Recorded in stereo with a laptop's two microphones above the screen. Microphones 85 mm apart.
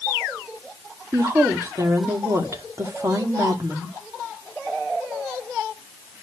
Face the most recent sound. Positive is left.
turn(degrees=-40)  # may be behind; listen again after turning